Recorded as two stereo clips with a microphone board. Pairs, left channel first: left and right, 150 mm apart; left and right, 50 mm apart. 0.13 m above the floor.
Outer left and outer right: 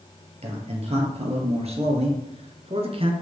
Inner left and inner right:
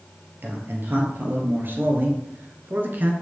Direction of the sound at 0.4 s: 40° right (ahead or behind).